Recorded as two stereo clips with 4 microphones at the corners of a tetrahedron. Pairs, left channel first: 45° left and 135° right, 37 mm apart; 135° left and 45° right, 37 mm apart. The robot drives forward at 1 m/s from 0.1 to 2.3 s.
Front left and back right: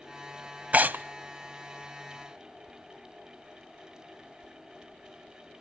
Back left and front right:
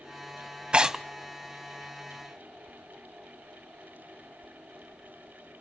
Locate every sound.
0.7 s tearing paper: 100° right, 0.5 m; by 1.0 s 130° right, 0.6 m